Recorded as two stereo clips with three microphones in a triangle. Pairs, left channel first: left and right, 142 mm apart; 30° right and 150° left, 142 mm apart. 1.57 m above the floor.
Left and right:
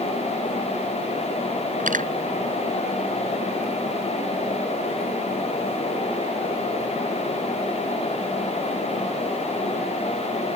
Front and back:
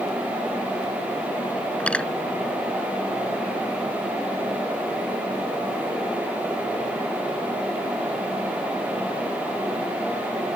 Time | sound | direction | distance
1.8 | cutlery clinking | 110° right | ?